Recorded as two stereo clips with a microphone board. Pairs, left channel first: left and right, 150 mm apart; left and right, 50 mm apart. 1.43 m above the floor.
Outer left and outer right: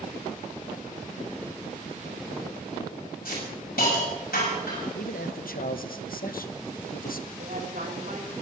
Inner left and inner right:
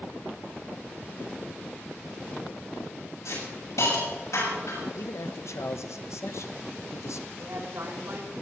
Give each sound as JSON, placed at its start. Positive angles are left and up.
{"t": 3.2, "sound": "a hiss", "side_deg": 80, "distance_m": 7.0}
{"t": 5.0, "sound": "a man speaking", "side_deg": 70, "distance_m": 1.1}
{"t": 7.4, "sound": "a woman speaking", "side_deg": -70, "distance_m": 5.0}